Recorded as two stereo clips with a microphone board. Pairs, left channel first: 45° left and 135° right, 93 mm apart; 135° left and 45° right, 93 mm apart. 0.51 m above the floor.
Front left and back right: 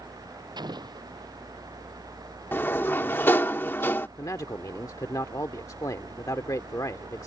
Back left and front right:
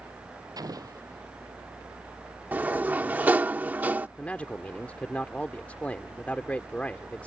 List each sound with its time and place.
0.6 s an explosion: 95° right
2.5 s a sliding door: 5° left
4.2 s a man speaking: 70° left